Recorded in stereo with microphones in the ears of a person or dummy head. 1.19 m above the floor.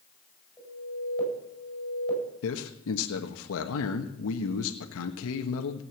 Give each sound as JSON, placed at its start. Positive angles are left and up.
{"t": 0.6, "sound": "an alarm", "side_deg": 5, "distance_m": 9.5}
{"t": 2.4, "sound": "a man speaking", "side_deg": 80, "distance_m": 1.3}